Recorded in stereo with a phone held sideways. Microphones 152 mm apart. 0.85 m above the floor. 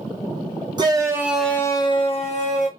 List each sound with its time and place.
0.8 s a shout: 30° right (ahead or behind), 0.9 m; by 2.7 s 50° left (ahead or behind), 1.3 m